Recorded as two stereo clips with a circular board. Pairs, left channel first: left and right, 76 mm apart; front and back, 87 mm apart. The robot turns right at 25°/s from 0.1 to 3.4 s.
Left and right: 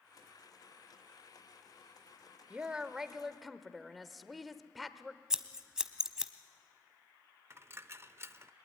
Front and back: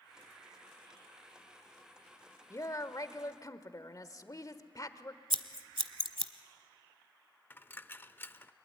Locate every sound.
2.5 s a woman speaking: 20° right, 1.1 m; by 5.2 s straight ahead, 1.1 m
5.3 s scissors: 170° right, 0.9 m
7.5 s a dropped coin: 50° right, 0.5 m